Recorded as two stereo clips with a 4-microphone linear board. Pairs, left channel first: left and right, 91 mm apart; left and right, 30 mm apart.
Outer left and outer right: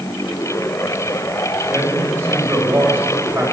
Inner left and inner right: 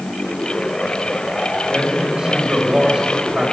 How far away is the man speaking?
About 4 m.